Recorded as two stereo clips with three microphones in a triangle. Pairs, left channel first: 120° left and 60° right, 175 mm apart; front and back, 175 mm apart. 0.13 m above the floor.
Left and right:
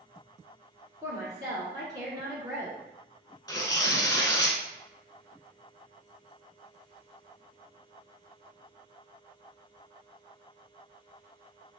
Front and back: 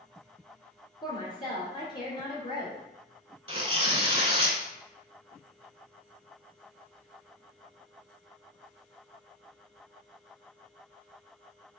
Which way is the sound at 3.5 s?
170° left.